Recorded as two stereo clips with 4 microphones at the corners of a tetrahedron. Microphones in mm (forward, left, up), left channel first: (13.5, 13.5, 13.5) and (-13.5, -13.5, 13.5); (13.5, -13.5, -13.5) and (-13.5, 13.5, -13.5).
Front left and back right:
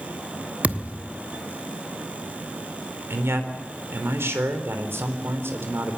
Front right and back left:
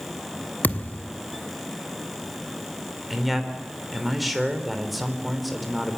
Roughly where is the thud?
Right.